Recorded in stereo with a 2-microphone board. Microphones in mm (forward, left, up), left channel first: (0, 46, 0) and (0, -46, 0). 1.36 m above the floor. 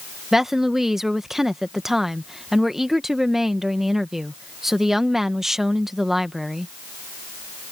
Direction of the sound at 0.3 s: 5° right (ahead or behind).